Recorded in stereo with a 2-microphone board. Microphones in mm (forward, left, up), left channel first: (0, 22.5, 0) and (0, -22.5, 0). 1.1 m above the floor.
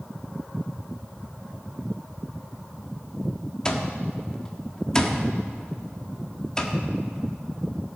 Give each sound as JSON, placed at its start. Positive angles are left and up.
{"t": 3.6, "sound": "an alarm clock", "side_deg": 15, "distance_m": 1.2}